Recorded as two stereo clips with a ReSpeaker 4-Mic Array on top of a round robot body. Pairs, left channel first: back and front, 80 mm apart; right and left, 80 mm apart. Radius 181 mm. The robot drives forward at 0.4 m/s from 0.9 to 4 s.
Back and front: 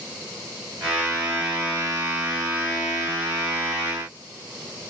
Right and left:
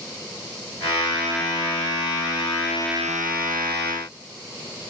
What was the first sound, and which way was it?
Only background noise.